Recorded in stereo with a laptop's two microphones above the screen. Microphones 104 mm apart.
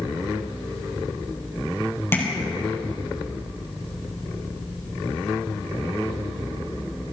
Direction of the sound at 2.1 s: 25° left (ahead or behind).